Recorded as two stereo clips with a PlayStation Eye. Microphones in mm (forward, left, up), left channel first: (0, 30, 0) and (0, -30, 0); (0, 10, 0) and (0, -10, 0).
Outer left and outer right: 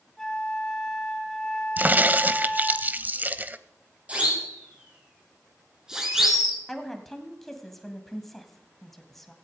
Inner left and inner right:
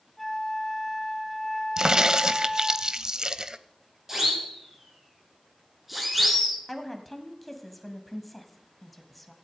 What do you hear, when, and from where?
0.2 s a flute: 10° left (ahead or behind), 2 m
1.8 s a crack: 35° right (ahead or behind), 0.6 m
4.1 s a siren: 25° right (ahead or behind), 6.5 m; by 6.6 s centre (ahead or behind), 4 m
6.7 s a woman speaking: 5° left (ahead or behind), 1.9 m